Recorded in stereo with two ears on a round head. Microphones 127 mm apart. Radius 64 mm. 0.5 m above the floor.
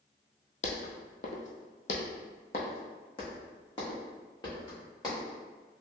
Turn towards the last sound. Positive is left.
turn(degrees=25)  # may be behind; listen again after turning